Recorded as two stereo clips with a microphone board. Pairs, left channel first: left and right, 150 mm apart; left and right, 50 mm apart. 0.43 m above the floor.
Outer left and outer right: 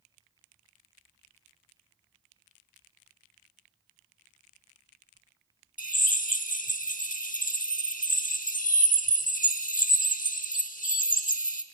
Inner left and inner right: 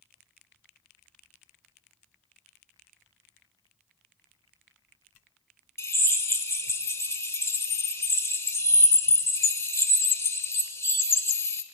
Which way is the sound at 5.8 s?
60° left (ahead or behind).